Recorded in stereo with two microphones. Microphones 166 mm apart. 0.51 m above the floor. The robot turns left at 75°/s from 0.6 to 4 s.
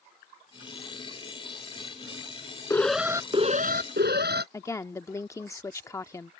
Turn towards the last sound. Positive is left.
turn(degrees=15)  # may be behind; listen again after turning